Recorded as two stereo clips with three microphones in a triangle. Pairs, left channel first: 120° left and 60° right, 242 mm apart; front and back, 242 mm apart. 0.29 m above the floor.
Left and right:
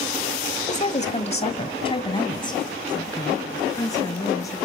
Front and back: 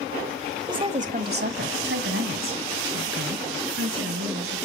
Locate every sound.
0.7 s a woman speaking: 125° left, 1.1 m; by 4.6 s 165° right, 4 m